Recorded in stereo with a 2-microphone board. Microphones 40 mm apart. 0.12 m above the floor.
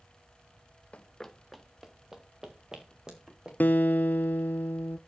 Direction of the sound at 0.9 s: 30° left (ahead or behind).